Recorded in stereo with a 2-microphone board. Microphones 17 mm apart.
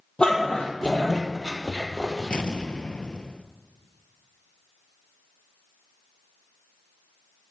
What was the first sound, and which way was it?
A dog barking, 60° left (ahead or behind).